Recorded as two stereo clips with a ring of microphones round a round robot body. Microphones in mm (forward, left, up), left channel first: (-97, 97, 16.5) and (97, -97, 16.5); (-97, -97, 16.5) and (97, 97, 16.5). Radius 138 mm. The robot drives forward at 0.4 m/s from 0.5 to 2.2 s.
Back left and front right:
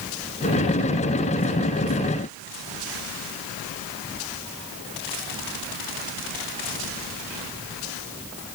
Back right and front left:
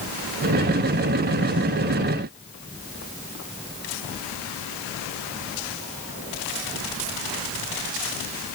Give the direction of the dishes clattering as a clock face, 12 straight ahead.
No dishes clattering in this recording.